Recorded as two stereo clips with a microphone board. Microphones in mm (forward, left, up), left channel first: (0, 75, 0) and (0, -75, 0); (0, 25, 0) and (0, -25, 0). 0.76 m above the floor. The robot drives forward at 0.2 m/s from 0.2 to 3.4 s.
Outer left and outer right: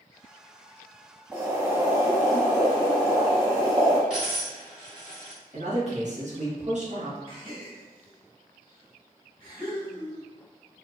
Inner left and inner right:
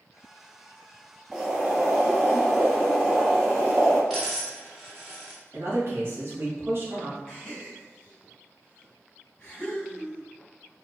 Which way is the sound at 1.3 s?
15° right (ahead or behind).